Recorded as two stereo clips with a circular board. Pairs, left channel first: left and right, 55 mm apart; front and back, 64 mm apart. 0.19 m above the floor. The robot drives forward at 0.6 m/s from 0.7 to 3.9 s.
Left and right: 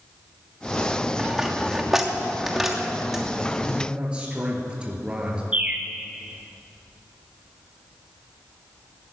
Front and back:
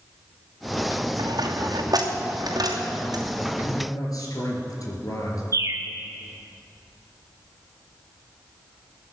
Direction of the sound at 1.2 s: 175° right.